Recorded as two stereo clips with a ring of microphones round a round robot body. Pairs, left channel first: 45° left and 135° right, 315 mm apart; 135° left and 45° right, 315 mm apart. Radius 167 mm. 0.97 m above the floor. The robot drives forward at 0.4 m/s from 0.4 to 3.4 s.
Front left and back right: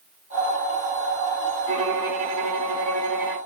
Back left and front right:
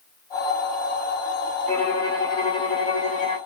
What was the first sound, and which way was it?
A violin, 140° right.